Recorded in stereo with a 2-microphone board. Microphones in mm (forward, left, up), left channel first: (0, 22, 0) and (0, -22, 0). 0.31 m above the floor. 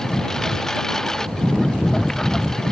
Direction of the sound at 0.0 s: 15° left (ahead or behind).